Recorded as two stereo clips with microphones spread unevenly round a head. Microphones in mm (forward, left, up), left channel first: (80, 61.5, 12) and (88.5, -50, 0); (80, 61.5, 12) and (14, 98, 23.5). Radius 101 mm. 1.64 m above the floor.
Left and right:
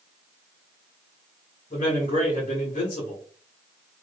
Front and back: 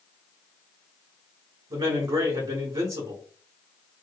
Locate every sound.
1.7 s a man speaking: 150° left, 0.7 m